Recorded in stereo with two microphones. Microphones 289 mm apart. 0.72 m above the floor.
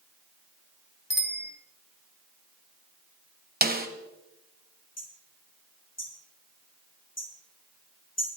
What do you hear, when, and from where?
1.1 s a bicycle bell: 35° left (ahead or behind), 4 m
3.6 s a snare drum: 30° right (ahead or behind), 2.0 m
5.0 s hammering: 60° left (ahead or behind), 7 m